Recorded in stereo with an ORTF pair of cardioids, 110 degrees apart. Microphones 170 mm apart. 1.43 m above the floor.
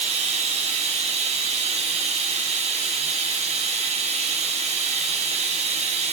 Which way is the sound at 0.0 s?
40° right.